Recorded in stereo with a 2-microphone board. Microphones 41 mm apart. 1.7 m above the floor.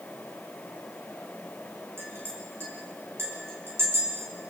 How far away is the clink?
About 5.5 m.